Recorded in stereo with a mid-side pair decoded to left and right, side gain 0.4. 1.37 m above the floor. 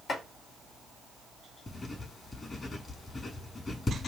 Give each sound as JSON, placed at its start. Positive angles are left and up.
{"t": 0.1, "sound": "chopping", "azimuth_deg": 55, "distance_m": 5.0}
{"t": 1.7, "sound": "writing", "azimuth_deg": 35, "distance_m": 6.0}